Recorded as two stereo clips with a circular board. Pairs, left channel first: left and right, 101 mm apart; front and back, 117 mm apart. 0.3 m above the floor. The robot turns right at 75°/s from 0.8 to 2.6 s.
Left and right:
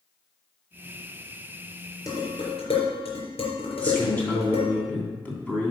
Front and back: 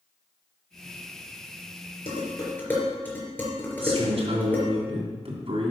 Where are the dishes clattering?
35° left, 3.5 m; by 4.7 s 75° left, 3.5 m.